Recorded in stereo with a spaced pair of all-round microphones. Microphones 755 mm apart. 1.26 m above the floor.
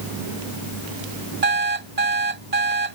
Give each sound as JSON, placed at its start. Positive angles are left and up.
{"t": 1.4, "sound": "an alarm clock", "side_deg": -55}